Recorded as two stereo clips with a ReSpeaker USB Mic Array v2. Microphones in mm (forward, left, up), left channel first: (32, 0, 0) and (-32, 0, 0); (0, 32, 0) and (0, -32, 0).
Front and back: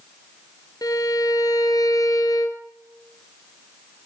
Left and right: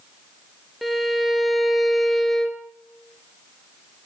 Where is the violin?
Straight ahead, 1.3 m.